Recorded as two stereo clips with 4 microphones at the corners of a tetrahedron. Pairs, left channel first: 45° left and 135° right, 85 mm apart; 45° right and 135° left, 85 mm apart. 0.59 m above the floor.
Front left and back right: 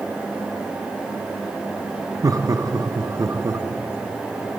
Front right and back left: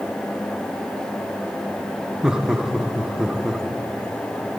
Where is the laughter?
145° right, 0.7 m.